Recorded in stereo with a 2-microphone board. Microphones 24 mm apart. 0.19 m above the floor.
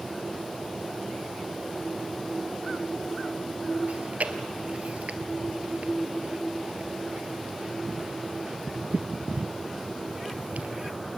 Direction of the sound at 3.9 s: 75° right (ahead or behind).